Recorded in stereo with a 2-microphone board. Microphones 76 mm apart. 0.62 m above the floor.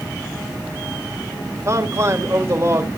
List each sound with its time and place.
1.6 s a man speaking: 40° right (ahead or behind), 2.0 m